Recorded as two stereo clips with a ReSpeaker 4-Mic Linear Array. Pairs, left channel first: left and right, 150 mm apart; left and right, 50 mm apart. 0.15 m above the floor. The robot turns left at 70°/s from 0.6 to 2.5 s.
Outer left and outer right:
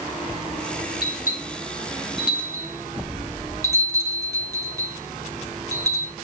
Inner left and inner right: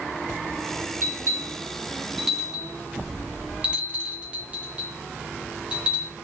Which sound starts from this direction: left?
A bell, at 1.0 s.